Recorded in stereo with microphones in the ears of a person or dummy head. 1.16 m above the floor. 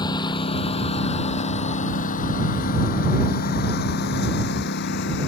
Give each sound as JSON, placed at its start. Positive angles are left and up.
{"t": 0.0, "sound": "a lawn mower", "side_deg": 20}